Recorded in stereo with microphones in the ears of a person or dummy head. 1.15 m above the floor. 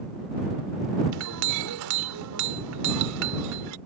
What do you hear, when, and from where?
1.1 s a clink: 65° right (ahead or behind)